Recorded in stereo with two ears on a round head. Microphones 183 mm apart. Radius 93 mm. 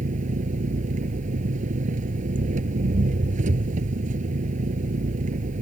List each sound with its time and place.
0.0 s an engine running: 40° right (ahead or behind)